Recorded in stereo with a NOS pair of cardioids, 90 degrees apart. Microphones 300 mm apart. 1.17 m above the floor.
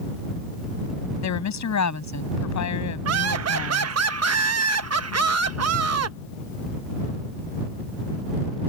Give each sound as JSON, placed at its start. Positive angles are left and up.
{"t": 1.2, "sound": "a woman speaking", "azimuth_deg": 65}
{"t": 3.0, "sound": "laughter", "azimuth_deg": -55}